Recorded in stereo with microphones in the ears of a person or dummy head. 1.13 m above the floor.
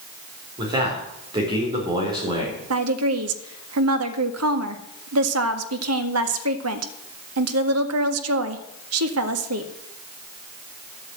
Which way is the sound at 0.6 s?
25° right (ahead or behind).